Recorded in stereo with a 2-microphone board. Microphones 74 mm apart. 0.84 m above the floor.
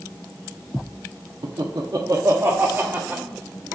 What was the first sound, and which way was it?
Laughter, 75° right (ahead or behind).